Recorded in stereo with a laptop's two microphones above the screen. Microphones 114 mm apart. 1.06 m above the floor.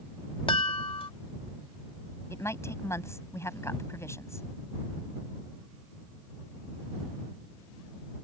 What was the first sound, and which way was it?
A chime, 50° left (ahead or behind).